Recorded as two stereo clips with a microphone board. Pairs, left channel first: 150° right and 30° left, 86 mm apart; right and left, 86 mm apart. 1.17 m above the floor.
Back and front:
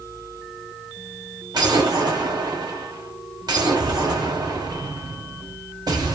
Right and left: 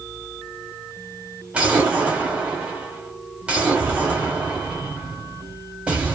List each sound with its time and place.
1.5 s an explosion: 15° left, 1.2 m